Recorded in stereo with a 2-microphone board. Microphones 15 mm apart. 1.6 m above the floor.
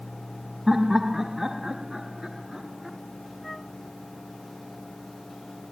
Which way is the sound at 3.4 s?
10° left (ahead or behind).